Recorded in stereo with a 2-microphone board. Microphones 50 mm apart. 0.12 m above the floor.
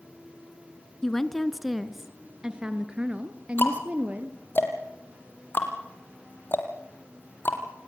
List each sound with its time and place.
1.0 s a woman speaking: 10° left (ahead or behind), 1.1 m; by 4.4 s 30° right (ahead or behind), 2 m
3.6 s ticking: 45° left (ahead or behind), 3.5 m